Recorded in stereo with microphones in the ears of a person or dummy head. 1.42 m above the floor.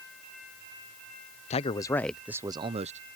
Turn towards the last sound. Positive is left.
turn(degrees=-40)  # may be behind; listen again after turning